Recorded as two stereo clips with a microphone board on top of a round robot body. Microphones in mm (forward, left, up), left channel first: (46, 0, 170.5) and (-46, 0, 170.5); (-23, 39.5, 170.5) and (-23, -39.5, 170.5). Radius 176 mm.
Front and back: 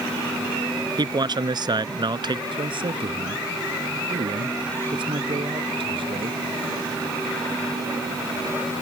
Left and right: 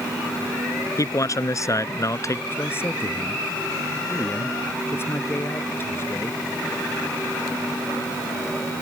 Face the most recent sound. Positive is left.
turn(degrees=150)